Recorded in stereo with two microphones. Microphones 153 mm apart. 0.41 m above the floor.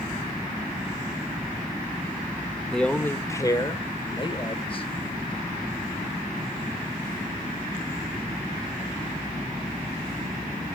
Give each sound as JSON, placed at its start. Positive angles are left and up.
{"t": 2.7, "sound": "a man speaking", "side_deg": 5, "distance_m": 0.8}